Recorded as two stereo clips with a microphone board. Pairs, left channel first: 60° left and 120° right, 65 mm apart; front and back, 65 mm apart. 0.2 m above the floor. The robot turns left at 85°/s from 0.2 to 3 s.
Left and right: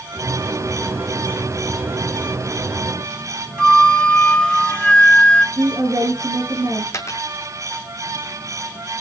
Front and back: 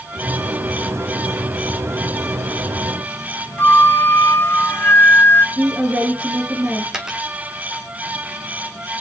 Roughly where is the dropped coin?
Left.